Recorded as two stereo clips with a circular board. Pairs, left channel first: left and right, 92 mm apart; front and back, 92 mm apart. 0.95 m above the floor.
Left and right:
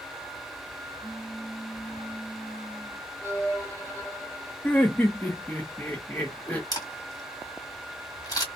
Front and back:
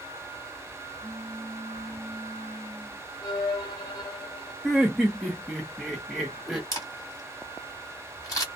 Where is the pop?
145° left, 1.0 m.